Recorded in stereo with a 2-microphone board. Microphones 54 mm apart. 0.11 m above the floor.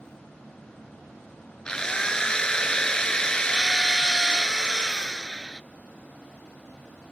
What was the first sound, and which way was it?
A drill, 15° left (ahead or behind).